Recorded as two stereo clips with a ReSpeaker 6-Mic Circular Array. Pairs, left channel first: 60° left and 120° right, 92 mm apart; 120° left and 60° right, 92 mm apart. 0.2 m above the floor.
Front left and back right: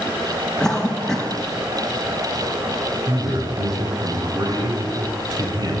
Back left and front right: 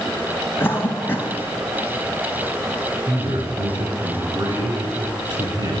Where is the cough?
130° left, 1.0 m.